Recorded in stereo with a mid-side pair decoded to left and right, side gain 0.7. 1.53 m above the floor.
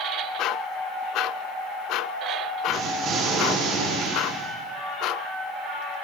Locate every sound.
2.7 s an explosion: 50° right, 1.4 m